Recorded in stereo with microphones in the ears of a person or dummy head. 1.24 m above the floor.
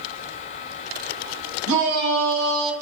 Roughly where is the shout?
Right.